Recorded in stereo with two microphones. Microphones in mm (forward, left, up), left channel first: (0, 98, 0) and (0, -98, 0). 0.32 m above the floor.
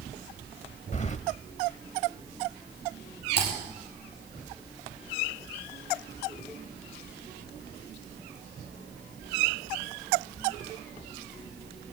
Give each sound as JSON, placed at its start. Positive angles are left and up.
{"t": 0.9, "sound": "keys jangling", "side_deg": 35, "distance_m": 0.8}
{"t": 3.4, "sound": "typing on a keyboard", "side_deg": -55, "distance_m": 6.5}